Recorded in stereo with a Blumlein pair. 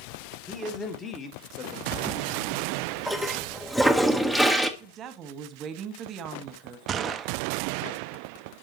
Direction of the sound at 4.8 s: 30° right.